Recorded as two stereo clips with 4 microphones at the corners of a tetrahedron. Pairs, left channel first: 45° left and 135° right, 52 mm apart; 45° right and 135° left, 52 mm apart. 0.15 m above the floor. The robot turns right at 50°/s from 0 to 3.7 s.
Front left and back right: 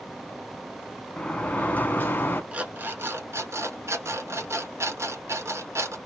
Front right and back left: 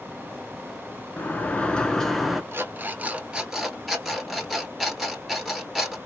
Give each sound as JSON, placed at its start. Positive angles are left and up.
{"t": 1.2, "sound": "a sliding door", "azimuth_deg": -15, "distance_m": 0.6}
{"t": 2.5, "sound": "an alarm clock", "azimuth_deg": 165, "distance_m": 0.9}